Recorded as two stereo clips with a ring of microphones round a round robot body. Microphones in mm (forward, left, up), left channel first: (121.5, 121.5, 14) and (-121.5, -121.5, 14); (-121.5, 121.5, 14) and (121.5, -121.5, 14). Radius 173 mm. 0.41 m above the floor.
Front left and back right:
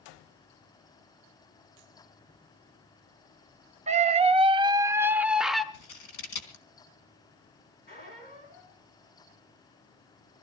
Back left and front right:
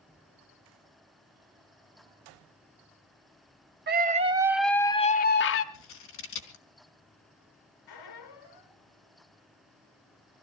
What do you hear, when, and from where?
3.9 s a scream: 80° right, 1.0 m; by 5.6 s 135° left, 1.0 m
5.7 s scissors: 80° left, 3.5 m
7.9 s a squeak: 110° left, 4 m